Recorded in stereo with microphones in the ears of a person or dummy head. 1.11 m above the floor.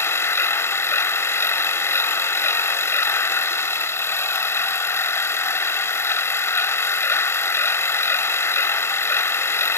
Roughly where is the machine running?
Left.